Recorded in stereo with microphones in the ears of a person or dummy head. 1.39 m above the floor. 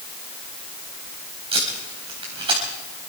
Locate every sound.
1.5 s tape being pulled: 30° right (ahead or behind), 3.5 m